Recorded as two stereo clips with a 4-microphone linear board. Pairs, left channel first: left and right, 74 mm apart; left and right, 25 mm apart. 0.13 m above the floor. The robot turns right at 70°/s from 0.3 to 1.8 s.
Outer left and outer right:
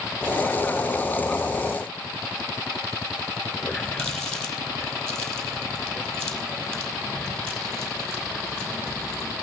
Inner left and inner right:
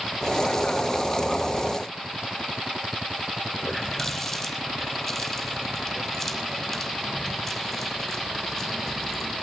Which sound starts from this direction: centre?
A running tap, at 3.6 s.